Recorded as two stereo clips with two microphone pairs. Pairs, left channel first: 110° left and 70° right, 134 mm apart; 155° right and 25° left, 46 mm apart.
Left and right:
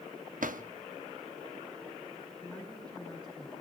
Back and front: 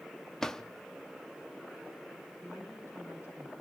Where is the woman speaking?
130° right, 9 m.